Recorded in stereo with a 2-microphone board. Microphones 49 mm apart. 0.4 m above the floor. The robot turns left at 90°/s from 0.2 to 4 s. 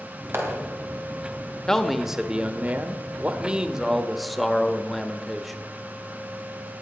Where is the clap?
60° right (ahead or behind), 3 m; by 0.6 s 70° right (ahead or behind), 3 m.